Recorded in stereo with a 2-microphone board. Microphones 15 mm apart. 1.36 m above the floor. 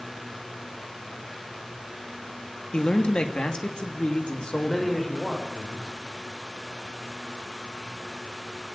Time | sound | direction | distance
2.7 | a man speaking | 80° left | 2.5 m
4.5 | a man speaking | 20° left (ahead or behind) | 5 m